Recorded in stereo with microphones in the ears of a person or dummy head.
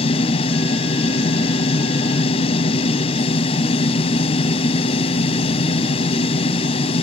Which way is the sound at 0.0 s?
30° left (ahead or behind).